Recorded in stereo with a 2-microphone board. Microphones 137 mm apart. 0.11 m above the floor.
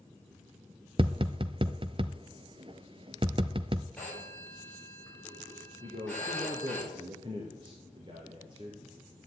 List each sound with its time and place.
1.0 s tapping: 40° right (ahead or behind), 0.6 m
4.0 s a phone ringing: 10° left (ahead or behind), 7.5 m
5.8 s a man speaking: 35° right (ahead or behind), 2.5 m